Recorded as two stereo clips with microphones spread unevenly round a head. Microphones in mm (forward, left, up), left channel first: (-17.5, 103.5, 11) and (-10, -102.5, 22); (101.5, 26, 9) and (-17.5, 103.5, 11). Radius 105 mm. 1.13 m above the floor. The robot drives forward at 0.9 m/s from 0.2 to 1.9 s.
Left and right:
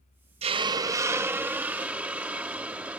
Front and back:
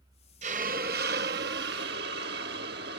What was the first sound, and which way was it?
A hiss, 150° right.